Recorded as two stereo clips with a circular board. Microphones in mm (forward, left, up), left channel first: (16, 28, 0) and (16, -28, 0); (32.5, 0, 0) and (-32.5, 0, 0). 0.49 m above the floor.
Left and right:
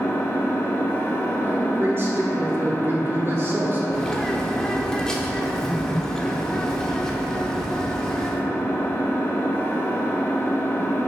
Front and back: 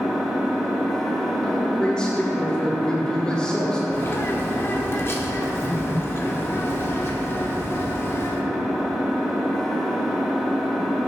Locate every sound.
0.0 s an engine running: 85° left, 1.0 m
1.4 s a man speaking: 70° right, 1.5 m
3.9 s a bird: 20° left, 0.8 m